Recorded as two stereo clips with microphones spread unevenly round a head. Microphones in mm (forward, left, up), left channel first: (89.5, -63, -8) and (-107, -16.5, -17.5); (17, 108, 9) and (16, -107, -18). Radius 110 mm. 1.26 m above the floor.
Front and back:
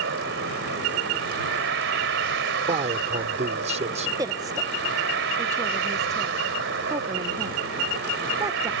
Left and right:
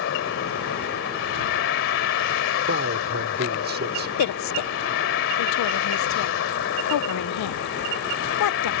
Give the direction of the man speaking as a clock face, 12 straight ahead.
5 o'clock.